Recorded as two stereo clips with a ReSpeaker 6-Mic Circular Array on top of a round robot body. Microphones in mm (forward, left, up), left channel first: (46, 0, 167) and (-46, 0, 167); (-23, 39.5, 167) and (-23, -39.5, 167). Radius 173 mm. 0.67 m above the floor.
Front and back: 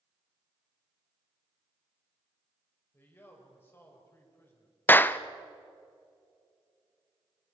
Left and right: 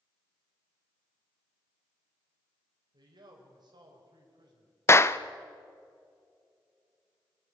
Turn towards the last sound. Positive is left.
turn(degrees=55)